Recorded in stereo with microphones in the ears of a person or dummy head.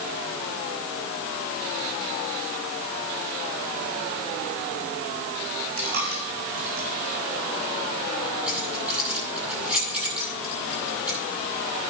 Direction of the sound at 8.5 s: 5° right (ahead or behind).